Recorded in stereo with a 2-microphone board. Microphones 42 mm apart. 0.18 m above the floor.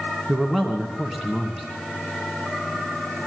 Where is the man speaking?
10° right (ahead or behind), 2 m.